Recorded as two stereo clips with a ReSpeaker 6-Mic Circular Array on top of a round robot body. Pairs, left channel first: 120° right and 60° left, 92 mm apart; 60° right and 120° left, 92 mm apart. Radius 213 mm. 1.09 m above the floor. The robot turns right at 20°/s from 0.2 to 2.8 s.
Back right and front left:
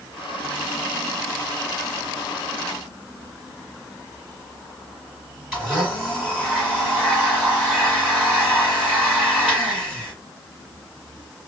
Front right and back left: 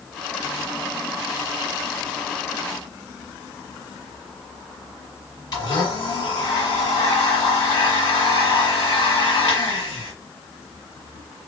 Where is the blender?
20° right, 1.3 m.